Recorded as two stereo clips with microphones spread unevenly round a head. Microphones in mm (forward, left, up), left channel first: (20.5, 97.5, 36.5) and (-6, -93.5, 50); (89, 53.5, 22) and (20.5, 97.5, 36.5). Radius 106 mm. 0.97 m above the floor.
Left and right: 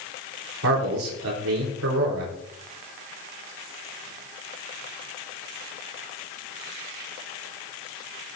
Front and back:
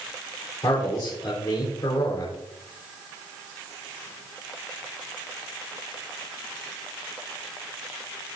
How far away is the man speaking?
About 4 m.